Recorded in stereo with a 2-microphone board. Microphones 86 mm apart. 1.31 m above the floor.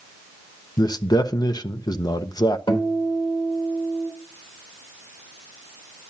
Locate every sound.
0.8 s a man speaking: 50° left (ahead or behind), 0.7 m
2.7 s a guitar: 80° left, 3.5 m